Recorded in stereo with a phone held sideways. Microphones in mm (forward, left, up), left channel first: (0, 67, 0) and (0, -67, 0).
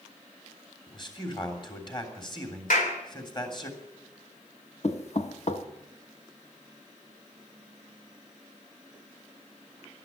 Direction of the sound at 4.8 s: 55° left (ahead or behind).